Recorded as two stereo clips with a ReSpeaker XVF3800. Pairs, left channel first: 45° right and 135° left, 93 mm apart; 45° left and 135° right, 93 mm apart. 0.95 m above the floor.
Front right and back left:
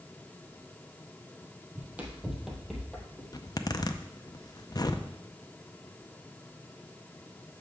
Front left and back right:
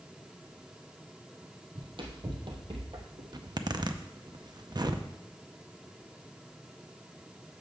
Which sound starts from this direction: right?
A zipper, at 3.3 s.